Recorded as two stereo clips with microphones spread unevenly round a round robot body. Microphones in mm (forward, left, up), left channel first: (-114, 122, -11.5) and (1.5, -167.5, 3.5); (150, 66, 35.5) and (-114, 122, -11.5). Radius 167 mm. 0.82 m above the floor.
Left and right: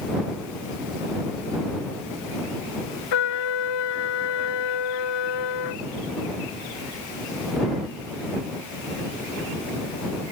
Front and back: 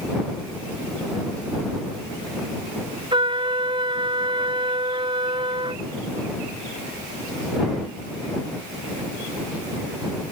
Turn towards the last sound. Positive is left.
turn(degrees=95)